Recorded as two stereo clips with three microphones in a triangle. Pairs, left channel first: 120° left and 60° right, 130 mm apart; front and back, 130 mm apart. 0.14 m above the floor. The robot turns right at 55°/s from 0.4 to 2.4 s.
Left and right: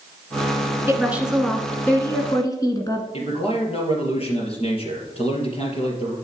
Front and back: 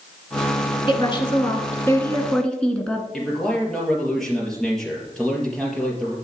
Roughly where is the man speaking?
Left.